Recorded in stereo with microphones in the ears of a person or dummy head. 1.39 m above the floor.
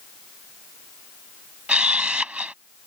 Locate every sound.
1.7 s a camera shutter: centre (ahead or behind)